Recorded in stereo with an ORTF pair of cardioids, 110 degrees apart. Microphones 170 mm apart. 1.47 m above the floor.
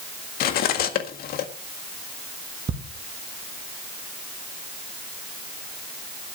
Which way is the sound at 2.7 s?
35° right.